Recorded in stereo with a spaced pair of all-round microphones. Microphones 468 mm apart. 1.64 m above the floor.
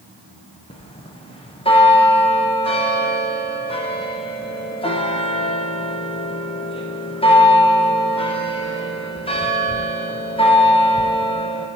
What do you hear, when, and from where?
0.7 s a bell: 10° left (ahead or behind), 0.7 m